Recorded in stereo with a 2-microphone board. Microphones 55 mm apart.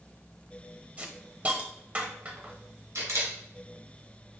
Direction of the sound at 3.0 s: 80° right.